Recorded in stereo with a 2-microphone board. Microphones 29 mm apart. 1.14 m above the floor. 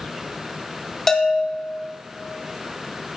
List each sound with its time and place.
1.1 s a bell: 10° left (ahead or behind), 1.9 m